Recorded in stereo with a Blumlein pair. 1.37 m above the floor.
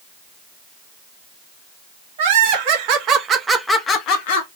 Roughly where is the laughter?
Ahead right.